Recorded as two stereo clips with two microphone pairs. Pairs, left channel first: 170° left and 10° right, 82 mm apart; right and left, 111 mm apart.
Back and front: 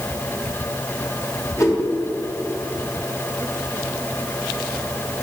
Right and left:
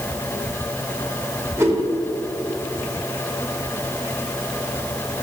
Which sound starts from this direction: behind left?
A whoosh, at 1.6 s.